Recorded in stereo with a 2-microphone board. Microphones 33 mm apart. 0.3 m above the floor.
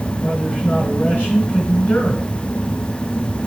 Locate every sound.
0.2 s a man speaking: 65° left (ahead or behind), 4 m